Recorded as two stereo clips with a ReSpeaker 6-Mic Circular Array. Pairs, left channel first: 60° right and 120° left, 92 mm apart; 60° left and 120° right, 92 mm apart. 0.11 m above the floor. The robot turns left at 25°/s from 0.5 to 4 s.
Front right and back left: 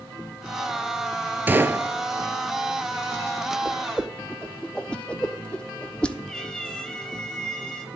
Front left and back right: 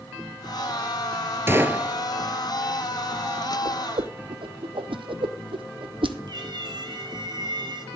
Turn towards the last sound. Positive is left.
turn(degrees=-140)